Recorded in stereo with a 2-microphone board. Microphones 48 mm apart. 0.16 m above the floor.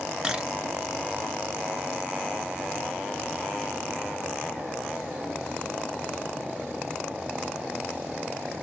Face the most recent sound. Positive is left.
turn(degrees=-15)  # may be behind; listen again after turning